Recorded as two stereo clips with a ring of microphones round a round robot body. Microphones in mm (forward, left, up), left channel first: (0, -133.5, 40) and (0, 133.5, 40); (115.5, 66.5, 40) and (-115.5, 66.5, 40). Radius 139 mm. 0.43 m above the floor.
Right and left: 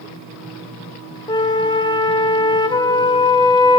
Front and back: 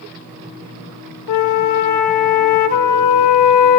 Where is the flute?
15° right, 0.5 m.